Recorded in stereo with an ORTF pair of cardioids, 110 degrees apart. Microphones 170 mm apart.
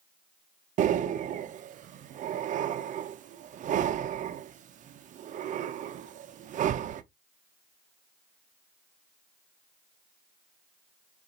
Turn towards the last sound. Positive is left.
turn(degrees=-50)